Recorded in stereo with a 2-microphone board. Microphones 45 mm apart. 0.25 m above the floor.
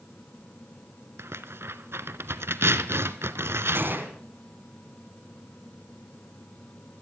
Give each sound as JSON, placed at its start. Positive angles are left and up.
{"t": 1.2, "sound": "tearing paper", "side_deg": -75, "distance_m": 0.7}
{"t": 3.8, "sound": "a gunshot", "side_deg": -55, "distance_m": 2.0}